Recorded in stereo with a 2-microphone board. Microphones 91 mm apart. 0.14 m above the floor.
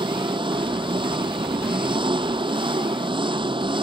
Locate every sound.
0.0 s an engine running: 70° right (ahead or behind)